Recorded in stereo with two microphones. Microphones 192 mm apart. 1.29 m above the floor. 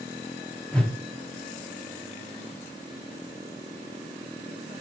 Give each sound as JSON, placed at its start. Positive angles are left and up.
{"t": 0.7, "sound": "a whoosh", "side_deg": 5, "distance_m": 0.8}